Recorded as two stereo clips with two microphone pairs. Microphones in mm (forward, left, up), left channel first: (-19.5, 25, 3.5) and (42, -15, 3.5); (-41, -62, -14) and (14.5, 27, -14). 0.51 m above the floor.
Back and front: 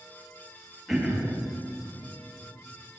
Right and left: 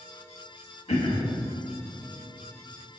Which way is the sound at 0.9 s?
125° right.